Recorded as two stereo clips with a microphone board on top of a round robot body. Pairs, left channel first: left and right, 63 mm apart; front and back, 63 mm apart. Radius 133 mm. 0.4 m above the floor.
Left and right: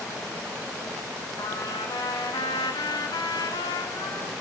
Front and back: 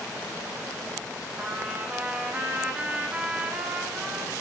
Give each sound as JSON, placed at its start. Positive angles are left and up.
{"t": 1.4, "sound": "a trumpet", "azimuth_deg": 110, "distance_m": 1.4}